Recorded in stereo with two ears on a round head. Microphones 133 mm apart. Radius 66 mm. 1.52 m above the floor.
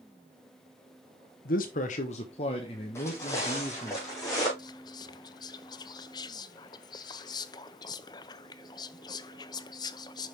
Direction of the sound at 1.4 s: 65° left (ahead or behind).